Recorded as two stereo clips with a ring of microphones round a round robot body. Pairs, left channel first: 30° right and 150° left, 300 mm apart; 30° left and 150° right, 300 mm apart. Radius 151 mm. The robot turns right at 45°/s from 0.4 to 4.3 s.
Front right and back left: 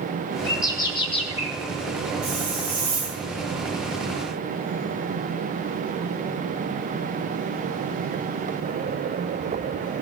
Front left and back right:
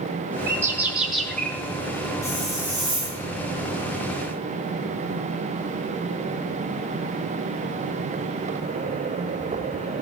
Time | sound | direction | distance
0.5 | a bird | 90° right | 0.9 m
2.2 | a hiss | 110° left | 2.5 m